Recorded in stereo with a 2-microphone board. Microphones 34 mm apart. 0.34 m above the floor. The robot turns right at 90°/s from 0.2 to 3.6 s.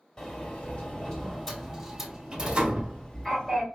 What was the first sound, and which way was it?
A sliding door, 15° left (ahead or behind).